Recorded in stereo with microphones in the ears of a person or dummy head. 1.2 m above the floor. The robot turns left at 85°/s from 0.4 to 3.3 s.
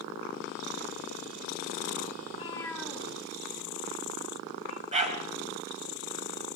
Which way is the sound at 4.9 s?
35° right (ahead or behind).